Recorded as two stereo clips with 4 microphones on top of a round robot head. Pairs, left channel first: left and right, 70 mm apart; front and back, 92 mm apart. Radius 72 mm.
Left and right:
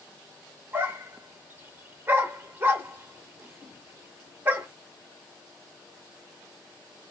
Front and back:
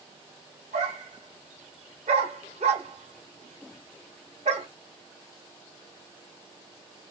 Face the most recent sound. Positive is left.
turn(degrees=-145)